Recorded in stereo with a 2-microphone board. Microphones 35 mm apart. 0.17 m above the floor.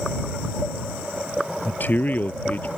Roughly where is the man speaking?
Left.